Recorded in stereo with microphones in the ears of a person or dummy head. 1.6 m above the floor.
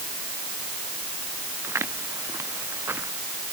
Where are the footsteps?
15° right (ahead or behind).